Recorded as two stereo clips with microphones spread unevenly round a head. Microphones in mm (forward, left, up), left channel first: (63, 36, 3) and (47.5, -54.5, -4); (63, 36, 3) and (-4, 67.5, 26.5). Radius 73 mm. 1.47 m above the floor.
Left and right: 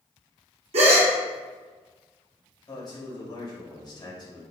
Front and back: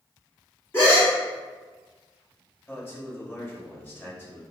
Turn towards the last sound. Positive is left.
turn(degrees=35)